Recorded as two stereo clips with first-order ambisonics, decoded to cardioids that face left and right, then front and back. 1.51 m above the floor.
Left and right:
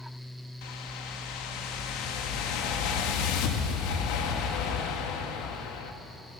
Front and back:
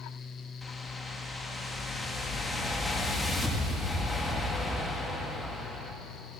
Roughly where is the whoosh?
Left.